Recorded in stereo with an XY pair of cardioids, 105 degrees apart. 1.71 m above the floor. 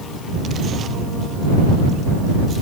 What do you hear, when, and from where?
Only background noise.